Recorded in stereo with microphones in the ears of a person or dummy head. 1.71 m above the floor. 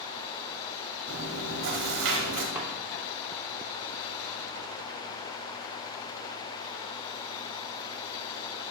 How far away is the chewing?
About 2 m.